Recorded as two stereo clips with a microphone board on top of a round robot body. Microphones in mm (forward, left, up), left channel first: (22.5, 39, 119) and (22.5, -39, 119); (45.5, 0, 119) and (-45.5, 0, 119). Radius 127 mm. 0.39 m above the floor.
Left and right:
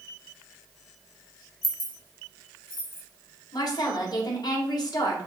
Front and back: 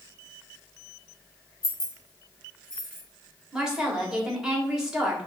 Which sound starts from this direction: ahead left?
Keys jangling, at 1.6 s.